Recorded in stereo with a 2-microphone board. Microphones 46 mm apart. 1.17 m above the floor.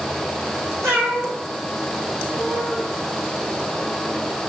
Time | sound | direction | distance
0.8 | a cat meowing | 70° right (ahead or behind) | 4.5 m